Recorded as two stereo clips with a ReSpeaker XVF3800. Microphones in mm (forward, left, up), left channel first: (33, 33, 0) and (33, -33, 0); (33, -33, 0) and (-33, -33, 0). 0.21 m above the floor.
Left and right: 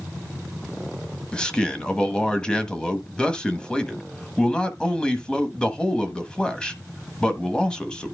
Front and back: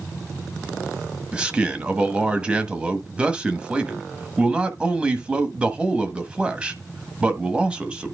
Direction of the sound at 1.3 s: 140° left.